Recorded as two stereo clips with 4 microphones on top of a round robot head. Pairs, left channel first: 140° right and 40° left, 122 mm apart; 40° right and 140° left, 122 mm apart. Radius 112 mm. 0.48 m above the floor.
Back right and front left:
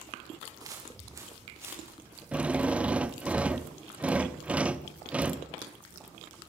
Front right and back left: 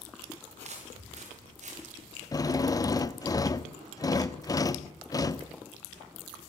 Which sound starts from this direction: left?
Footsteps, at 0.6 s.